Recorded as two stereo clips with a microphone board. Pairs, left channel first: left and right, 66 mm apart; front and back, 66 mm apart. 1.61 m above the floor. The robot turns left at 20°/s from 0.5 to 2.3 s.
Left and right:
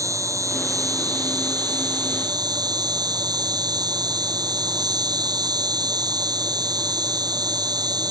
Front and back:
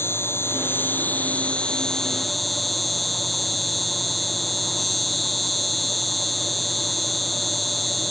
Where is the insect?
50° right; by 8.1 s 90° right.